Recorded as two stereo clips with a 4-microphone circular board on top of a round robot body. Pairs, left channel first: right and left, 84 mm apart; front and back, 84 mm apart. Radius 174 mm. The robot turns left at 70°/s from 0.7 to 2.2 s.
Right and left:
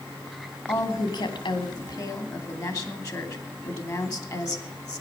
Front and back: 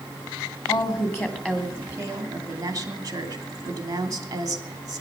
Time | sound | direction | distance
0.7 | a woman speaking | 30° right | 3 m